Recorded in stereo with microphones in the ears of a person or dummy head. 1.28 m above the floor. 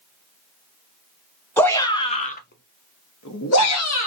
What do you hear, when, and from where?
1.6 s a shout: 5° left (ahead or behind), 0.8 m; by 4.1 s 65° left (ahead or behind), 0.9 m